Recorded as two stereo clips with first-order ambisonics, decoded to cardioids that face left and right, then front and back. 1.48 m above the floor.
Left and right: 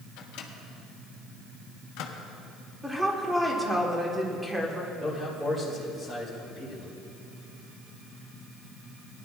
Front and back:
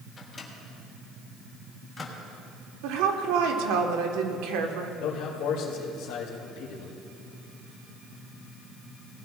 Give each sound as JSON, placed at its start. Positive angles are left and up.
{"t": 0.2, "sound": "a microwave", "azimuth_deg": 70, "distance_m": 1.2}
{"t": 2.8, "sound": "a woman speaking", "azimuth_deg": -175, "distance_m": 1.4}
{"t": 5.0, "sound": "a man speaking", "azimuth_deg": -5, "distance_m": 2.5}